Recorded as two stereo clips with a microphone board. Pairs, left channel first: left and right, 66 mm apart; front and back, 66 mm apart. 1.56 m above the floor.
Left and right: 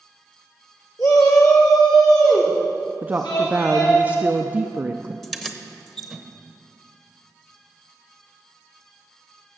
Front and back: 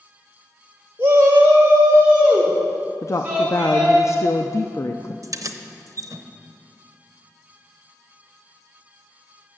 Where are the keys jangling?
Straight behind, 0.8 m.